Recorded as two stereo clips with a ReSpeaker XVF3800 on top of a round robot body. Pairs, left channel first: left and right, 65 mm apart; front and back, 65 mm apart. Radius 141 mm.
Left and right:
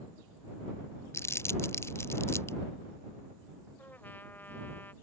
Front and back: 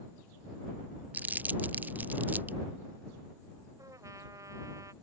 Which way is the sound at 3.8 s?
150° left.